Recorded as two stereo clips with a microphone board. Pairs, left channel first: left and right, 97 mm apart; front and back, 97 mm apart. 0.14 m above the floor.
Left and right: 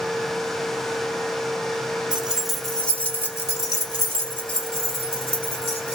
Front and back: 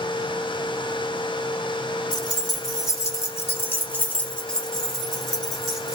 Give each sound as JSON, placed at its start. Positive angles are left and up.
{"t": 2.1, "sound": "keys jangling", "azimuth_deg": -15, "distance_m": 1.2}